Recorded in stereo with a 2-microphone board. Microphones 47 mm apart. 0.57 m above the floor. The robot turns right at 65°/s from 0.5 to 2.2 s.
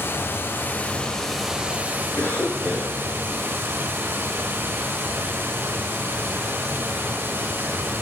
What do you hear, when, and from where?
0.0 s running water: 125° left, 1.5 m; by 8.0 s 125° right, 1.5 m
2.2 s a cough: 45° left (ahead or behind), 8 m; by 3.0 s 50° left (ahead or behind), 8 m